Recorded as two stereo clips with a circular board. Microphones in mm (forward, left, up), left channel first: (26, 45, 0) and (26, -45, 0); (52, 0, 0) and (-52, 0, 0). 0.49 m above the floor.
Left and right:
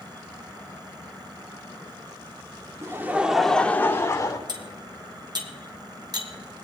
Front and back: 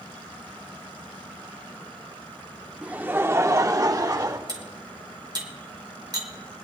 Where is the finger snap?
No finger snap in this recording.